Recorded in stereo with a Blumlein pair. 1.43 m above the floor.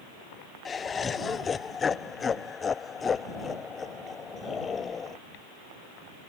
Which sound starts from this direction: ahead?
Laughter, at 0.7 s.